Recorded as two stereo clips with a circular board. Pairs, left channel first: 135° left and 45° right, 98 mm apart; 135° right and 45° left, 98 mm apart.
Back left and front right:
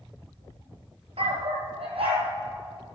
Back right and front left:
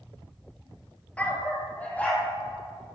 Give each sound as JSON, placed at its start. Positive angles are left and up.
{"t": 1.2, "sound": "a dog barking", "azimuth_deg": -60, "distance_m": 1.2}